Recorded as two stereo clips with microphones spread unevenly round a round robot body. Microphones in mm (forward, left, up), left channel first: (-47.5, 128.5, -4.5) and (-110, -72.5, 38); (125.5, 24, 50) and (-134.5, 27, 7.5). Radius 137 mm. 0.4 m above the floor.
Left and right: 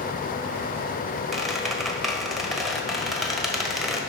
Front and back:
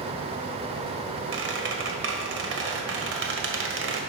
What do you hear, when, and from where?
1.3 s a squeak: 155° left, 1.6 m